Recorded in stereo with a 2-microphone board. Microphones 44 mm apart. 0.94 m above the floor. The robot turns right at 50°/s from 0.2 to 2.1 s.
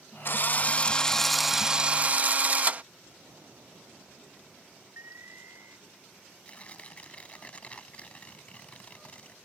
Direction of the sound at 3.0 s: 80° right.